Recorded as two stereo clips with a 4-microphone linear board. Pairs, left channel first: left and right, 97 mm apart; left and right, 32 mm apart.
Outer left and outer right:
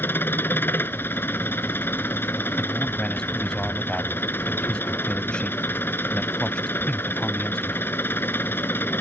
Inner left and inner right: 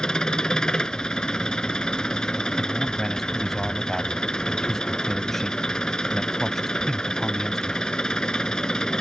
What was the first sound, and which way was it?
An engine running, 20° left (ahead or behind).